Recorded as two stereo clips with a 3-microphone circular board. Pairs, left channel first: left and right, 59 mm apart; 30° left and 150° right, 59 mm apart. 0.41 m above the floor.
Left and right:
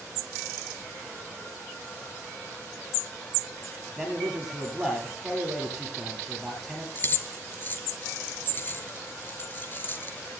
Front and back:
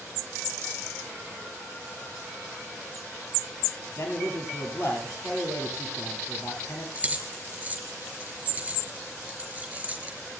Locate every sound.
4.0 s a man speaking: 5° right, 9.5 m
7.0 s keys jangling: 145° left, 5 m